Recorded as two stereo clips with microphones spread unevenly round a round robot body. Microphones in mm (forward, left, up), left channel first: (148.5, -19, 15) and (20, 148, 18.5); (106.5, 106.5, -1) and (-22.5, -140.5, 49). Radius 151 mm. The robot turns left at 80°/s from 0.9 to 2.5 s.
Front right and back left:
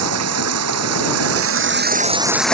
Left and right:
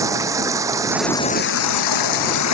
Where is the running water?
160° left; by 2.5 s 35° left.